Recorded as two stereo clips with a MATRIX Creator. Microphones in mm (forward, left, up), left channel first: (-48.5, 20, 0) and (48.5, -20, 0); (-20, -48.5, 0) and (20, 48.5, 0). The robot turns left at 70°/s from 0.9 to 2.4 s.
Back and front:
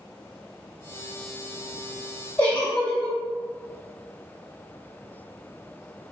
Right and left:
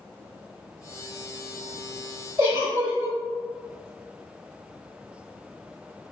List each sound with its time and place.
2.4 s a giggle: 100° left, 1.9 m